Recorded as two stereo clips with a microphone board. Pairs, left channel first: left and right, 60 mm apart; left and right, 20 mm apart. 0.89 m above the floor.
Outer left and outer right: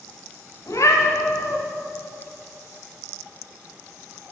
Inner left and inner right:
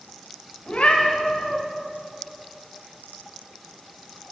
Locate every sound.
0.7 s a cat meowing: 60° left (ahead or behind), 1.8 m